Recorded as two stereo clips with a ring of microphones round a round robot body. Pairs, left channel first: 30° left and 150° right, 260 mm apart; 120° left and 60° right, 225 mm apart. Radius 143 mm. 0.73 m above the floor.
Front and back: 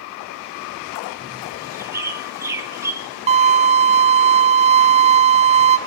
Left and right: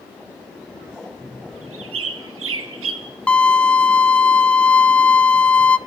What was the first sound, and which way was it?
A bird, 70° right.